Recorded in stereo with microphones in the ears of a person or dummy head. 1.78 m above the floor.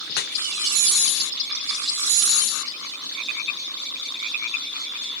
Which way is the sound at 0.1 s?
55° left (ahead or behind).